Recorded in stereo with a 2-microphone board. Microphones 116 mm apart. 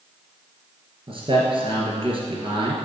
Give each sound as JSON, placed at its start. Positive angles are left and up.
{"t": 1.1, "sound": "a man speaking", "side_deg": -50, "distance_m": 2.5}